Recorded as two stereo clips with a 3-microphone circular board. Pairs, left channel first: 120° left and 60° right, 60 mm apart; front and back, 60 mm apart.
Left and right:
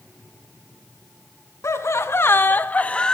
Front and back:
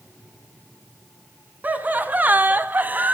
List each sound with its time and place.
1.6 s laughter: 125° left, 1.8 m; by 3.1 s straight behind, 1.2 m